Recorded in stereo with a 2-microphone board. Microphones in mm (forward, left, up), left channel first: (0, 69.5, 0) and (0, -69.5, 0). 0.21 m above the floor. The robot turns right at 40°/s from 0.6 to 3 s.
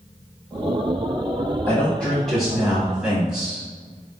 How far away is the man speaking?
About 1.0 m.